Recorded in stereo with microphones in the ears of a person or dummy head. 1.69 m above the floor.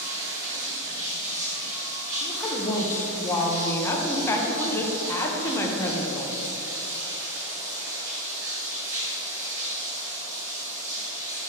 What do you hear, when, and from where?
0.0 s running water: 15° right (ahead or behind), 1.5 m
2.2 s a woman speaking: 15° left (ahead or behind), 1.0 m